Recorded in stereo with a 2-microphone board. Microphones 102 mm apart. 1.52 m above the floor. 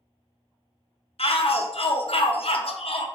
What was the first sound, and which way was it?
A shout, 70° left (ahead or behind).